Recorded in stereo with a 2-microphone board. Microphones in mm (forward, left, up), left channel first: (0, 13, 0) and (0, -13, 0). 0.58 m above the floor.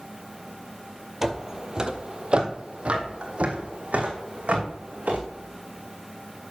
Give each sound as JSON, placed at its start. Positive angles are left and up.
{"t": 1.2, "sound": "footsteps", "side_deg": -15, "distance_m": 0.8}